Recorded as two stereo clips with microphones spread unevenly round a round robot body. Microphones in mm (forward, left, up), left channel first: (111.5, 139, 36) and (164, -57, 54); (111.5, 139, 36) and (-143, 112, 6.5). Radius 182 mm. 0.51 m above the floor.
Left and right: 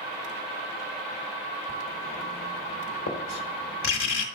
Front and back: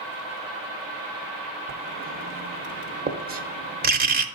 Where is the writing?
130° left, 1.0 m.